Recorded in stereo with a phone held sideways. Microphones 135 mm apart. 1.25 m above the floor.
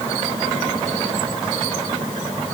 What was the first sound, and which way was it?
Only background noise.